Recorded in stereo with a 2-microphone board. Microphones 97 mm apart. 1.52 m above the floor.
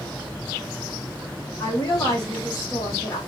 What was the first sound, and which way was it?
A woman speaking, 40° left (ahead or behind).